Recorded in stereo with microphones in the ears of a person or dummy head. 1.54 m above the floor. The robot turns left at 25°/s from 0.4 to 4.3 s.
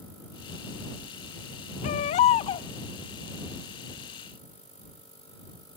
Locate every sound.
1.8 s a baby crying: 40° left (ahead or behind); by 2.7 s 30° left (ahead or behind)